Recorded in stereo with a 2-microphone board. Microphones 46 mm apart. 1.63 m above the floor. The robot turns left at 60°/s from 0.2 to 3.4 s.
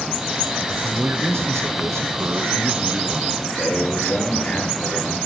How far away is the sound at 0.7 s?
About 0.9 m.